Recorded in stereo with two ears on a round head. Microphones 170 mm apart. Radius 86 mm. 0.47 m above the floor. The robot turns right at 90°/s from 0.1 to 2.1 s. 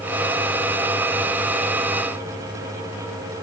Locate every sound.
Only background noise.